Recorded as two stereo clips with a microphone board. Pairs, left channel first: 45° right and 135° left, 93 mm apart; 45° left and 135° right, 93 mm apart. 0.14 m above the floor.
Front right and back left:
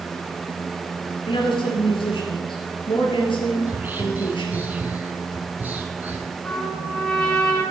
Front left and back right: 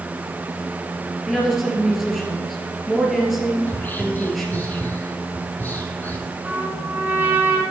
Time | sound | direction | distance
1.3 | a woman speaking | 45° right | 2.5 m
3.7 | whispering | 90° left | 1.2 m
6.4 | a trumpet | 110° right | 1.5 m